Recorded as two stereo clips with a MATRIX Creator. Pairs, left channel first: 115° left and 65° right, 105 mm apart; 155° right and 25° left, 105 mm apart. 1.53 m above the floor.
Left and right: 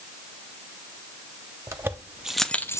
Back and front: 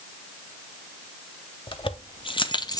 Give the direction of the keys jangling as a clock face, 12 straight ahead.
4 o'clock.